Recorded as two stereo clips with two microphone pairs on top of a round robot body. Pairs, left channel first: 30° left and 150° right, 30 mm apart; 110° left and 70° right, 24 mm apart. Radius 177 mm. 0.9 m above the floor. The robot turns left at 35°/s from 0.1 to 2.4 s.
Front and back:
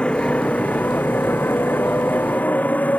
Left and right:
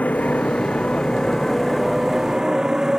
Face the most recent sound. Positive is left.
turn(degrees=-5)